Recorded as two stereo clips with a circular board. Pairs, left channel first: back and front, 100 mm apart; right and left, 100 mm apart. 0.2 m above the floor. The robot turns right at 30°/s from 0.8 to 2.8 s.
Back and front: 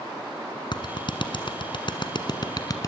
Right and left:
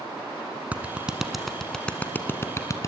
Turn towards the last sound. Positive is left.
turn(degrees=-140)